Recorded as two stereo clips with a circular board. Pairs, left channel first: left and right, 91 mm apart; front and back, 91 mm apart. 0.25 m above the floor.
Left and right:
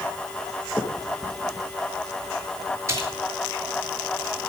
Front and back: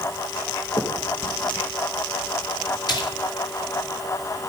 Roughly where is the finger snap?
Ahead.